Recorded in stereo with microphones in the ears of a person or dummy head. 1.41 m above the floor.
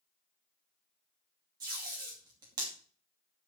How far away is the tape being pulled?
About 2.5 m.